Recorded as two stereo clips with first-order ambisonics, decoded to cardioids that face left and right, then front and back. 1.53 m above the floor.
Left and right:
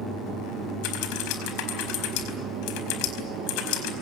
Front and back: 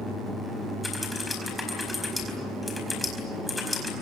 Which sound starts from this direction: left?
Typing on a keyboard, at 0.8 s.